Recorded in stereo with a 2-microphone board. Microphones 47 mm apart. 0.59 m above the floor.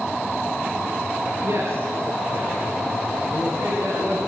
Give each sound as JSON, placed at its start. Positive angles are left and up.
{"t": 1.4, "sound": "a man speaking", "side_deg": -75, "distance_m": 9.0}